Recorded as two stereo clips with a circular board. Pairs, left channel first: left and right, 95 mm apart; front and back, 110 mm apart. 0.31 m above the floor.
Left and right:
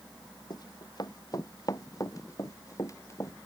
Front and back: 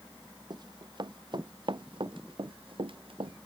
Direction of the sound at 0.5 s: 135° left.